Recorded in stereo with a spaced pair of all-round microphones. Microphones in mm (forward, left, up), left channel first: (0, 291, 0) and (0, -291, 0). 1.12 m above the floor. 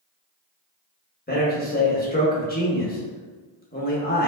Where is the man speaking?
15° left (ahead or behind), 1.1 m.